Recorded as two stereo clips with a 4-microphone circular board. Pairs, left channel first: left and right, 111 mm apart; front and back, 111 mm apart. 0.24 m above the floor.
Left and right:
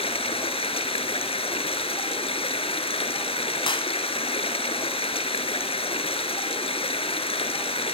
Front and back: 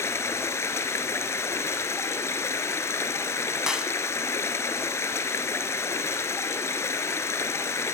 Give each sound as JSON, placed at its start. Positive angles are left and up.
{"t": 0.0, "sound": "running water", "azimuth_deg": 65, "distance_m": 1.4}
{"t": 3.7, "sound": "a clap", "azimuth_deg": 100, "distance_m": 1.3}